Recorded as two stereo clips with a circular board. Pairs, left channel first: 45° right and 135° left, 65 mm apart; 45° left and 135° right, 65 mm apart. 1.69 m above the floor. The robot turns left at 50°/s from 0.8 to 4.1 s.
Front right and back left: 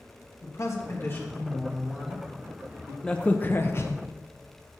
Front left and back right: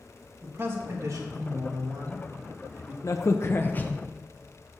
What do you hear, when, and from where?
0.4 s a man speaking: 85° right, 2.5 m; by 2.9 s 170° left, 2.5 m
3.0 s a crack: 30° left, 1.0 m; by 4.0 s 20° right, 1.0 m